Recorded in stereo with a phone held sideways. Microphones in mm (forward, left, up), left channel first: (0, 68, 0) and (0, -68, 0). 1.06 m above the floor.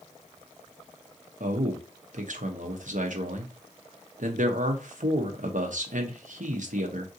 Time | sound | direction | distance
1.4 | a man speaking | 70° right (ahead or behind) | 0.8 m